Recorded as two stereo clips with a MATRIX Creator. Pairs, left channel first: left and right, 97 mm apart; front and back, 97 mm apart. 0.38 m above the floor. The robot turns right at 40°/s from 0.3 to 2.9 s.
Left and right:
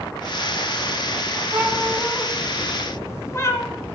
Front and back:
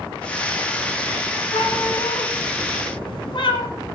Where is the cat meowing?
25° right, 1.6 m; by 3.7 s 30° left, 1.6 m.